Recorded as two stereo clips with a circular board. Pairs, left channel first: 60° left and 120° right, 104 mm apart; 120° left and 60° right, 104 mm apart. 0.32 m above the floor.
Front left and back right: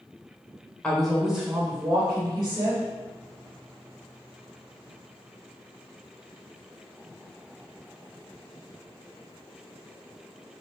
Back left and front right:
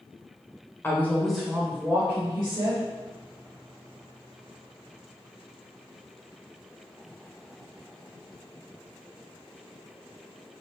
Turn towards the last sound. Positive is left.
turn(degrees=-80)